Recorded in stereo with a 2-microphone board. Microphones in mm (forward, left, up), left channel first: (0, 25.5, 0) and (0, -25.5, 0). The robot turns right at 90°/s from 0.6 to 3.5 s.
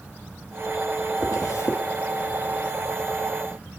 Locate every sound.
1.2 s a zipper: 65° left (ahead or behind), 2.5 m; by 1.8 s 60° left (ahead or behind), 2.5 m